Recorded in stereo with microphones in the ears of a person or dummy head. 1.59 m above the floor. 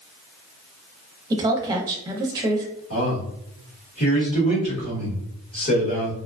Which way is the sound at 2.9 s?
40° left (ahead or behind).